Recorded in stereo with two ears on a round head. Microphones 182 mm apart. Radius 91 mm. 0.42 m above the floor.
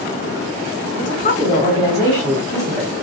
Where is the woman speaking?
40° left (ahead or behind), 1.5 m; by 3.0 s 10° right (ahead or behind), 1.5 m.